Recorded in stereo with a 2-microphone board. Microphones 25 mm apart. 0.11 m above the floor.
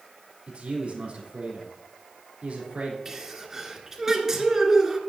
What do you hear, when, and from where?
0.5 s a man speaking: 55° right (ahead or behind), 3.5 m
3.0 s a sneeze: 20° right (ahead or behind), 1.8 m